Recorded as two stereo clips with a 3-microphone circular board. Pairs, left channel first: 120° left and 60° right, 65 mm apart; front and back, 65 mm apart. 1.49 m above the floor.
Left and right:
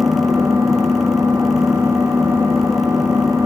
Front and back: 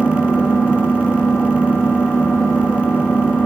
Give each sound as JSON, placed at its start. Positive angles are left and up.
{"t": 0.0, "sound": "an engine running", "azimuth_deg": -70, "distance_m": 2.5}